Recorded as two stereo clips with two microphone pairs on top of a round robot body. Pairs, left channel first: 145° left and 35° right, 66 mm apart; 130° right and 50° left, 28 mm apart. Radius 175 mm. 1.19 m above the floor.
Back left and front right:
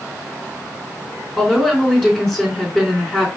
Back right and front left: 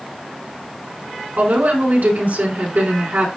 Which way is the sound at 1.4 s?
65° left.